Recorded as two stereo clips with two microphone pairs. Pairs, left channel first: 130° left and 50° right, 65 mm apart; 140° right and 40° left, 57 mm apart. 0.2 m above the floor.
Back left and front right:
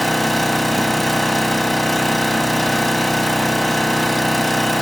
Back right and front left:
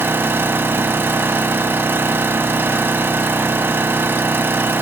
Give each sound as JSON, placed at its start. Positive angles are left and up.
{"t": 0.0, "sound": "an engine running", "azimuth_deg": 40, "distance_m": 1.0}